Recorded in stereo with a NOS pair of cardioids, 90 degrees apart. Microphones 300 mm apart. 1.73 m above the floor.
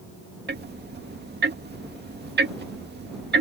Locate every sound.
0.5 s ticking: 35° right